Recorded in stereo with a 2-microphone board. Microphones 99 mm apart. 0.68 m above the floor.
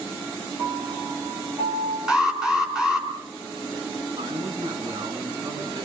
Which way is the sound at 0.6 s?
20° right (ahead or behind).